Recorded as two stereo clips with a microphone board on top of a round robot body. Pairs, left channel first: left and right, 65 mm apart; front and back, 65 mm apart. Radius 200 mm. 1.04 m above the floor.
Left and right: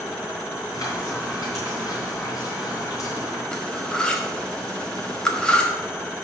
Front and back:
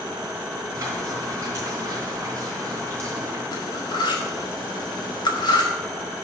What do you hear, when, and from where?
0.7 s frying: 130° left, 3.5 m
3.5 s cutlery clinking: 15° left, 1.2 m